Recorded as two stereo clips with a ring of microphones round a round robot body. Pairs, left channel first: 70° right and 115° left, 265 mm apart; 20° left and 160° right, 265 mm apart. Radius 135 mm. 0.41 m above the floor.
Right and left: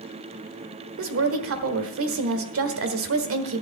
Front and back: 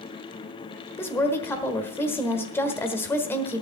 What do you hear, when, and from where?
1.0 s a woman speaking: 100° left, 1.3 m